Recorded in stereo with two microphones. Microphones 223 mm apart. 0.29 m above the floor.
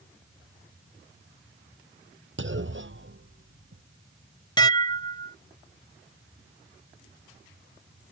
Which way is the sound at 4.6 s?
20° left (ahead or behind).